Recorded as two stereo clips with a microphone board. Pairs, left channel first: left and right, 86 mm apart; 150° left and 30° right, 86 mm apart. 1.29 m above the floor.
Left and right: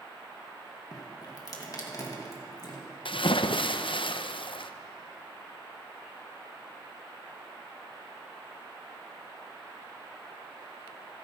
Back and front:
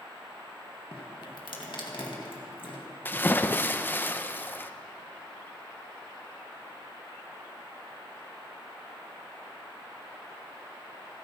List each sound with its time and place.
0.9 s dripping: 130° left, 2 m
3.0 s a splash: 85° left, 0.6 m